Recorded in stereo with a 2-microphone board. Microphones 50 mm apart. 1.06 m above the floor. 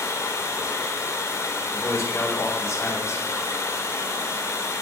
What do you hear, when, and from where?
0.0 s running water: 75° left (ahead or behind), 2 m
1.7 s a man speaking: 60° left (ahead or behind), 4.5 m